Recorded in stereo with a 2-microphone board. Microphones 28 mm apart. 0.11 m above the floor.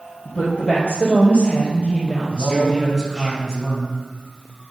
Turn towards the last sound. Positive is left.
turn(degrees=25)  # may be behind; listen again after turning